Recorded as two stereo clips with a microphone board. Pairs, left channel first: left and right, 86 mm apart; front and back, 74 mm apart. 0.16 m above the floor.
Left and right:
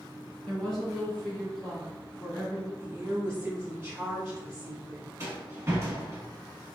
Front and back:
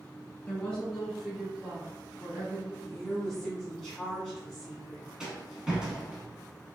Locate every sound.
0.5 s a woman speaking: 20° left, 1.7 m; by 2.7 s 175° right, 1.8 m
2.8 s a woman speaking: 80° right, 1.6 m
5.2 s a rattle: 105° right, 0.9 m